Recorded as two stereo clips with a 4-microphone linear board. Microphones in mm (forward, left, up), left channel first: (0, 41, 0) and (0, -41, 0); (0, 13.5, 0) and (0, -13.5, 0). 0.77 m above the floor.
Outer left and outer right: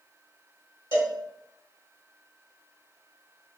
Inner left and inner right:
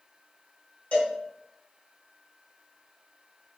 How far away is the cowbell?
About 0.9 m.